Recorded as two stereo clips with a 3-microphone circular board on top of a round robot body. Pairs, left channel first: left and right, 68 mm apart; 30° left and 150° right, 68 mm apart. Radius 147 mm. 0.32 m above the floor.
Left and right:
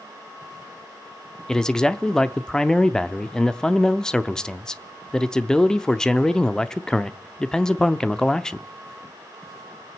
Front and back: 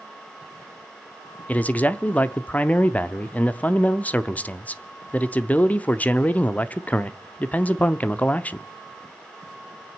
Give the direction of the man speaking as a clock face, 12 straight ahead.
11 o'clock.